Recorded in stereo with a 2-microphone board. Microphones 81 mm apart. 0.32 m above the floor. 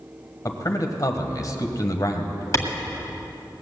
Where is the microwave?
No microwave in this recording.